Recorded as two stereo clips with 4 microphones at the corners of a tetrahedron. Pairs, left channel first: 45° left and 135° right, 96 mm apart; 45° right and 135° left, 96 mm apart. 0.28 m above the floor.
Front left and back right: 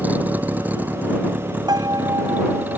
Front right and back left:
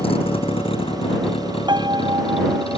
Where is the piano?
175° left.